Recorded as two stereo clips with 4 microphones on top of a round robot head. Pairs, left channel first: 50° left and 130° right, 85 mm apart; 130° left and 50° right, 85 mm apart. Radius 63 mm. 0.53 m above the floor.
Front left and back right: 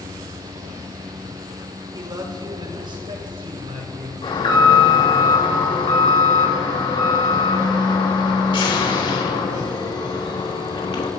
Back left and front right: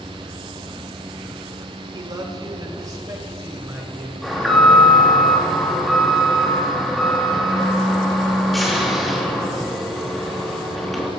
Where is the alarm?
35° left, 4 m.